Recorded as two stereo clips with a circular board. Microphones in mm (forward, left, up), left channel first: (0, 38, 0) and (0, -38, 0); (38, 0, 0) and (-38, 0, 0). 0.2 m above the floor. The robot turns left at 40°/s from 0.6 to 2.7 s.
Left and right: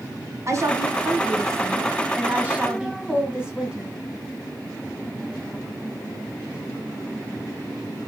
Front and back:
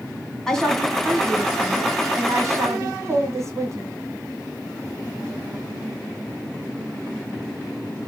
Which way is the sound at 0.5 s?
80° right.